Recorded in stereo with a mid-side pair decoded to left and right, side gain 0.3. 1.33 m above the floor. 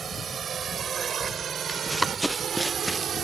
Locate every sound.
0.0 s a drone: 70° right; by 3.2 s 75° right
1.7 s running footsteps: 5° right